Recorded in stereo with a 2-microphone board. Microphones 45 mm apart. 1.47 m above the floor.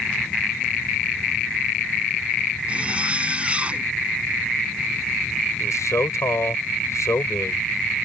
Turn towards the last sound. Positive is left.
turn(degrees=80)